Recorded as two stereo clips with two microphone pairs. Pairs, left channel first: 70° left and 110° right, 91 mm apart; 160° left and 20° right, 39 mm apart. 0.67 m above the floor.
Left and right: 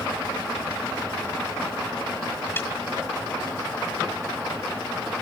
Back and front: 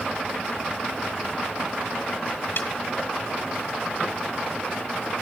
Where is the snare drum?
135° left, 1.2 m.